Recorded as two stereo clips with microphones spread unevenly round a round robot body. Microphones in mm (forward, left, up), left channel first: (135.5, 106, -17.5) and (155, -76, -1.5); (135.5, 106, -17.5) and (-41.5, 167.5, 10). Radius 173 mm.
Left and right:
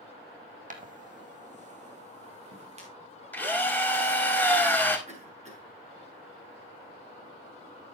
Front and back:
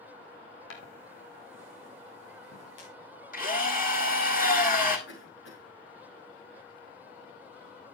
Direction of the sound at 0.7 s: 45° right.